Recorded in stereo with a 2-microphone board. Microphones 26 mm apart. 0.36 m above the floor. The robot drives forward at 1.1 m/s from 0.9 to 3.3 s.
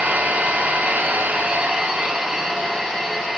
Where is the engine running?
65° right (ahead or behind), 0.7 m; by 3.4 s 15° right (ahead or behind), 2.5 m.